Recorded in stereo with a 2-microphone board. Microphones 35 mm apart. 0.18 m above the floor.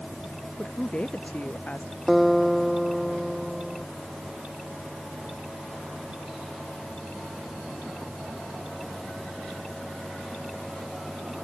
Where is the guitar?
5° left (ahead or behind).